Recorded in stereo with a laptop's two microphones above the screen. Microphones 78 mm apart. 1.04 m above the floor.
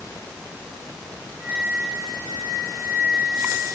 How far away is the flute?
About 3.5 m.